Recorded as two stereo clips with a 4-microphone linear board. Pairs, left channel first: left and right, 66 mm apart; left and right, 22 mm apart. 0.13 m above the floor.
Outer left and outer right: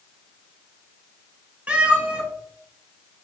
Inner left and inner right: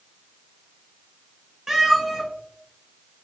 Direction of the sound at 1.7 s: 20° right (ahead or behind).